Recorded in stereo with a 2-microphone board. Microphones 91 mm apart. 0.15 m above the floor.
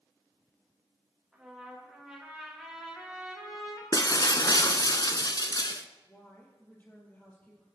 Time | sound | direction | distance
1.3 | a trumpet | 5° right (ahead or behind) | 5 m
3.9 | breaking glass | 45° left (ahead or behind) | 0.7 m
6.1 | a woman speaking | 20° left (ahead or behind) | 4 m